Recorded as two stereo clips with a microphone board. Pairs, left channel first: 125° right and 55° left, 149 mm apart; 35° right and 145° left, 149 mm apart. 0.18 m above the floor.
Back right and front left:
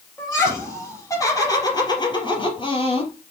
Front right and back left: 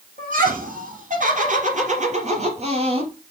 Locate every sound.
0.2 s laughter: 160° left, 4.5 m; by 3.1 s 170° right, 3 m